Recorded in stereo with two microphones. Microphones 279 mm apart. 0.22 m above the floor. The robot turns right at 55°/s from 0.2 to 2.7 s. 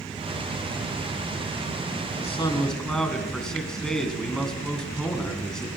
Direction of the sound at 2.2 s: 25° left (ahead or behind).